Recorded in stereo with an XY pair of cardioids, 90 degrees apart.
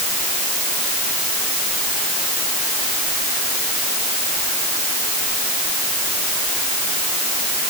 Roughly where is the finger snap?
No finger snap in this recording.